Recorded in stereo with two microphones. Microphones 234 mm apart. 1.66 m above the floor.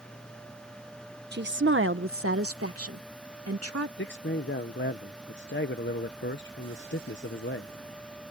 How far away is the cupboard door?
I don't hear a cupboard door.